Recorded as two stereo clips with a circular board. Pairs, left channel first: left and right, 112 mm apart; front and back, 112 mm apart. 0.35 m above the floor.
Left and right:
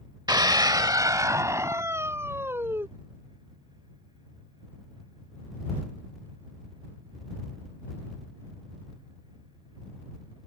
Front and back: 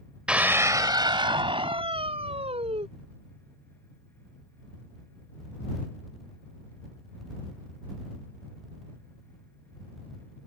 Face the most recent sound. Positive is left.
turn(degrees=-160)